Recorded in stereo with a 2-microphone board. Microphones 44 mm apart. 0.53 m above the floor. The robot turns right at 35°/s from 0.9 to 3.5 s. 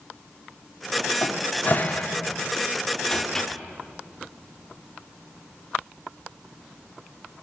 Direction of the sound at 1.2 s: 40° left (ahead or behind).